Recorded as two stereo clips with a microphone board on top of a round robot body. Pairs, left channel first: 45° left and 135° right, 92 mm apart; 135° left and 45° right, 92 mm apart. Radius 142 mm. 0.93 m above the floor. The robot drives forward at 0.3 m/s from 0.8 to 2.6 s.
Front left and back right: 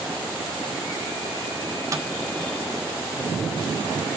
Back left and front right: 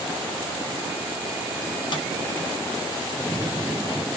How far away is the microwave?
About 1.4 m.